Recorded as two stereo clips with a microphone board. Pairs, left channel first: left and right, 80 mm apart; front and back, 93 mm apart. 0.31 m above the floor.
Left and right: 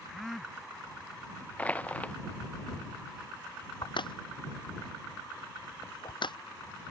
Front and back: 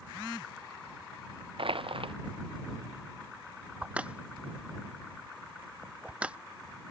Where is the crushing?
160° left.